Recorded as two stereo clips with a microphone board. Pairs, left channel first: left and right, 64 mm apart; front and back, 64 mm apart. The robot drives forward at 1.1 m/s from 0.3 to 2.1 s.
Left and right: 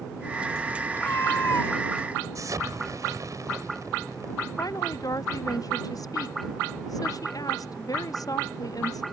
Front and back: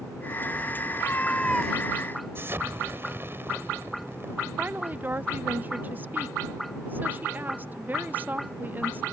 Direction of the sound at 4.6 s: 120° left.